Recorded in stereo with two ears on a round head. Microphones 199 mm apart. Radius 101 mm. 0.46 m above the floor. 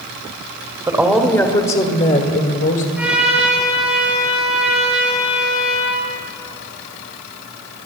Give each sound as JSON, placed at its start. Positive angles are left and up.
{"t": 0.9, "sound": "a woman speaking", "side_deg": -15, "distance_m": 1.2}
{"t": 3.0, "sound": "a trumpet", "side_deg": -5, "distance_m": 6.5}